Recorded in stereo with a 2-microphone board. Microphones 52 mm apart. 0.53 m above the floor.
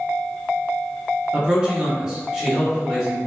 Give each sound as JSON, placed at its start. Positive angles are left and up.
{"t": 1.3, "sound": "a man speaking", "side_deg": -20, "distance_m": 0.8}